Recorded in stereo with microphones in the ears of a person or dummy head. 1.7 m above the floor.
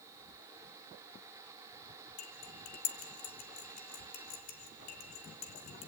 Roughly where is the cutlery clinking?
Left.